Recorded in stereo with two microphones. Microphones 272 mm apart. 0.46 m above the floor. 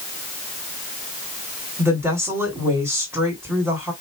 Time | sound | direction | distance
1.8 | a woman speaking | 10° right (ahead or behind) | 1.9 m